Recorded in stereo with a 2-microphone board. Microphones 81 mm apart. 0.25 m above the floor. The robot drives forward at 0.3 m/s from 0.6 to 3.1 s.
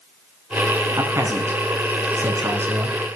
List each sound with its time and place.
1.0 s a man speaking: 35° right (ahead or behind), 2.5 m; by 3.2 s 30° right (ahead or behind), 3 m